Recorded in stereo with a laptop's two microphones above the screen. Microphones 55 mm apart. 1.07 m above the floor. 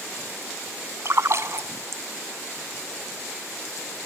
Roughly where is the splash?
Right.